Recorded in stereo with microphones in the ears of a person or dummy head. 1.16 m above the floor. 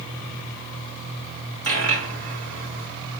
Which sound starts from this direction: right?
A dropped coin, at 1.6 s.